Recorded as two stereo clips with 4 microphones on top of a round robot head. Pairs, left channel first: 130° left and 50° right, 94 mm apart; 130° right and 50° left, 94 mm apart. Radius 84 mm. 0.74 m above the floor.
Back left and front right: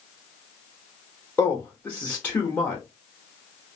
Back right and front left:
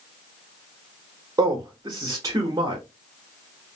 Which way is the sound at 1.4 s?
70° left.